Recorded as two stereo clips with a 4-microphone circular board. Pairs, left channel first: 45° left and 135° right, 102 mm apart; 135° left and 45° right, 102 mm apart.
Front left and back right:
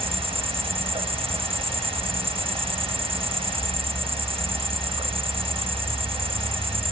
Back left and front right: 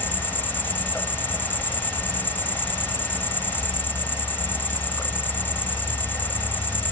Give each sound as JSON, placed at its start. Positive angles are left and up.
{"t": 0.0, "sound": "an insect", "azimuth_deg": -155}